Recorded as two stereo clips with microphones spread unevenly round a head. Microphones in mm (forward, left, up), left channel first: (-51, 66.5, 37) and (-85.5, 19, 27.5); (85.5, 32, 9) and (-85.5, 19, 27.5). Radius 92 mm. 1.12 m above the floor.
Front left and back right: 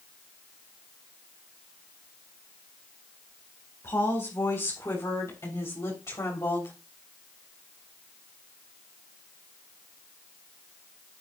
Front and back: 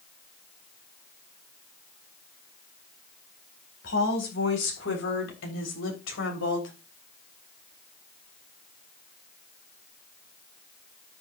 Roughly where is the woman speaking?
Ahead.